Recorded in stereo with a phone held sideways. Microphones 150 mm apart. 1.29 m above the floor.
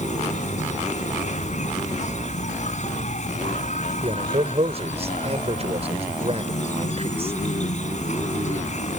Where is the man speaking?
45° right (ahead or behind).